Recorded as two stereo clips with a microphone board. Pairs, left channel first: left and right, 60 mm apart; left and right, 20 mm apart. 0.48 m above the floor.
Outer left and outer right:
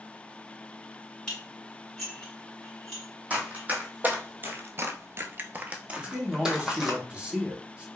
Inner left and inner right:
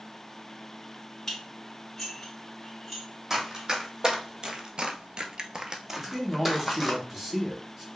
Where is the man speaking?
20° right (ahead or behind), 1.1 m.